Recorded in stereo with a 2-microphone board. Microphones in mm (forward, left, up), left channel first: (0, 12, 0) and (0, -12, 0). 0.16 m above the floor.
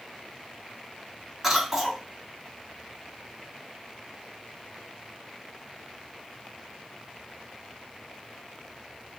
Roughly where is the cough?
Centre.